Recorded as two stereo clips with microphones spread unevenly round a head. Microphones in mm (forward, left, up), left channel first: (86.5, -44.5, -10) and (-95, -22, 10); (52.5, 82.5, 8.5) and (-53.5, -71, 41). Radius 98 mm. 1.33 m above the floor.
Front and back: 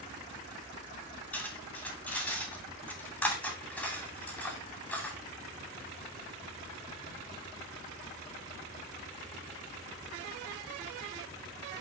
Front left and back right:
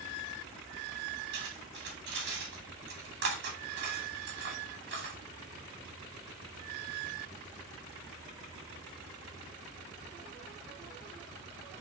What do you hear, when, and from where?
1.3 s cutlery clinking: 90° right, 2.5 m